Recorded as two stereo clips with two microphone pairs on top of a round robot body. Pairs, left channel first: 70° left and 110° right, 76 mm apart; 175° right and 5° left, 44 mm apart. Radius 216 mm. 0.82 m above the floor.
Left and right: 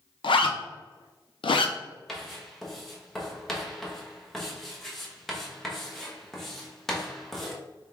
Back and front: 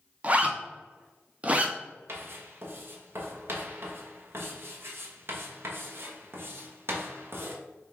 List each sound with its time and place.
0.2 s a zipper: 65° left, 0.6 m
2.1 s writing: 20° right, 1.0 m